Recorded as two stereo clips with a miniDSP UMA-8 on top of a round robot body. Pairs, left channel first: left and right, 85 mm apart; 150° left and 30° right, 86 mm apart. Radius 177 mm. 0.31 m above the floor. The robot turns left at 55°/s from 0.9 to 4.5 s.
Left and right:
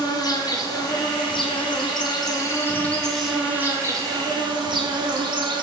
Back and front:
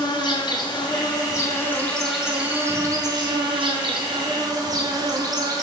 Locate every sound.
0.0 s an insect: 125° left, 0.9 m; by 5.6 s 70° right, 0.9 m